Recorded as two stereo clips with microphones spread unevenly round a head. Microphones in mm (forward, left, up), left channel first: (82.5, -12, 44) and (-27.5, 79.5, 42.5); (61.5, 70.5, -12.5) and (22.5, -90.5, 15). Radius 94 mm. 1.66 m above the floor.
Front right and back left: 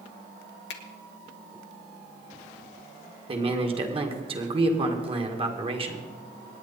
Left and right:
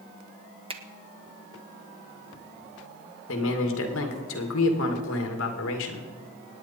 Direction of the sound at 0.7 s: 45° right.